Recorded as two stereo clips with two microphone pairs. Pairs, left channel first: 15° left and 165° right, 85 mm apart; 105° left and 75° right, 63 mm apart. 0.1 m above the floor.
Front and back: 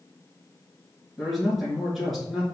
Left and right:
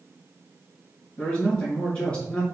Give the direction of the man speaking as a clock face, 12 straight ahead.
8 o'clock.